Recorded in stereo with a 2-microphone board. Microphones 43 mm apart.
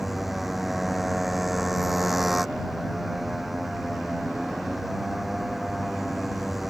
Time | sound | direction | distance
0.0 | a motorcycle | 5° right (ahead or behind) | ?